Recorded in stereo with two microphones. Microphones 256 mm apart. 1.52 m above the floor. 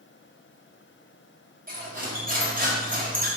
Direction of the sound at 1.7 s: 35° right (ahead or behind).